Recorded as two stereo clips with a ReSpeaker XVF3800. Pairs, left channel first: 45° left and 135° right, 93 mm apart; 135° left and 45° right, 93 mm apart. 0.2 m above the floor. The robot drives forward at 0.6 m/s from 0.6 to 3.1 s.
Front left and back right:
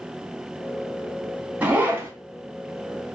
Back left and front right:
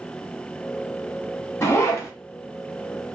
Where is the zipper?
165° left, 1.0 m; by 2.1 s 170° left, 1.2 m.